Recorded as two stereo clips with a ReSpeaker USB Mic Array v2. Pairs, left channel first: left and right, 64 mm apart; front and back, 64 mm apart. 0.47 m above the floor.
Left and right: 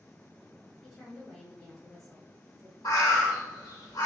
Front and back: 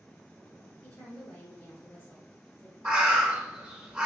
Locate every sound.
0.8 s a woman speaking: 10° left, 1.0 m
2.9 s a bird: 105° left, 0.6 m